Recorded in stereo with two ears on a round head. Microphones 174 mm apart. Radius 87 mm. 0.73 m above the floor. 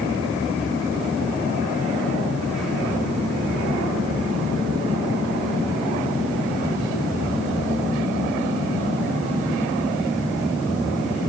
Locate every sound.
Only background noise.